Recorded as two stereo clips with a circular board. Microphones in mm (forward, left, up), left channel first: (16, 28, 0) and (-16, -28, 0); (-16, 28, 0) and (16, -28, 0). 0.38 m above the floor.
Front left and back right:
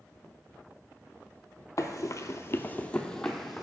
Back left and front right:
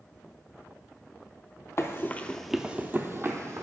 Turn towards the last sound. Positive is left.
turn(degrees=-30)